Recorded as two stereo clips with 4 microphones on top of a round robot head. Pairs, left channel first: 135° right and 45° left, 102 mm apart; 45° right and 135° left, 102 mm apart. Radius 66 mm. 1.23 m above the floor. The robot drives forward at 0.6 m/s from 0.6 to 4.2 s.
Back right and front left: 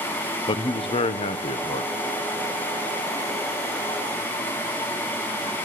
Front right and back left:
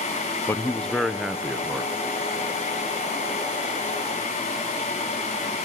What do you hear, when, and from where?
0.5 s a man speaking: 110° right, 0.7 m; by 1.9 s 150° right, 1.2 m